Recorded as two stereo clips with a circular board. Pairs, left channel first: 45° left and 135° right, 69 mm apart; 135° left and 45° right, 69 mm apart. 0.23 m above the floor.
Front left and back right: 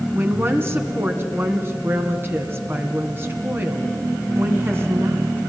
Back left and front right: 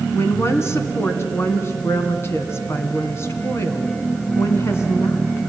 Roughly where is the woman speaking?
Behind.